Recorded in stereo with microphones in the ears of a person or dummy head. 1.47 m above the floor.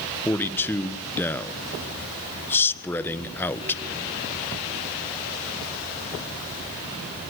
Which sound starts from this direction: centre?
A man speaking, at 0.2 s.